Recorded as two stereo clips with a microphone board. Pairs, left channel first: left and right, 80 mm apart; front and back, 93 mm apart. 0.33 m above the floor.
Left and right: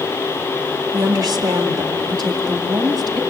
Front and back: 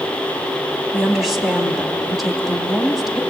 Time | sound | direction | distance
0.9 | a woman speaking | 95° right | 2.5 m